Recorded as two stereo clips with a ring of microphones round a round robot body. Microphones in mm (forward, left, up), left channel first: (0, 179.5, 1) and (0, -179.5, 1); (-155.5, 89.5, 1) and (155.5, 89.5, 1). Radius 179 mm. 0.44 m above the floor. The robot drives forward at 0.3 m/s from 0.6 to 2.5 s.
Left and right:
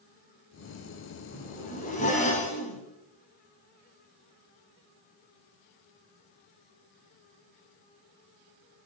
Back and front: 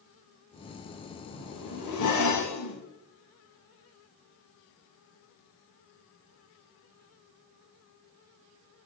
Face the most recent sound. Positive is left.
turn(degrees=160)